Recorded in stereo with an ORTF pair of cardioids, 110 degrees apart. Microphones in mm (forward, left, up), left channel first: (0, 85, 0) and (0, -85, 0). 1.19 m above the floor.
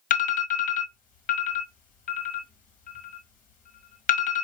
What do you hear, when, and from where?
0.1 s an alarm: 50° left, 1.2 m